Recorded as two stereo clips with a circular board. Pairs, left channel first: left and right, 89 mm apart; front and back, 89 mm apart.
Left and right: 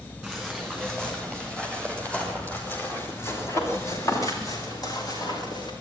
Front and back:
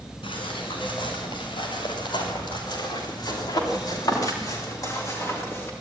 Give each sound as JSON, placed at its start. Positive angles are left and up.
{"t": 0.2, "sound": "footsteps", "azimuth_deg": 0, "distance_m": 9.0}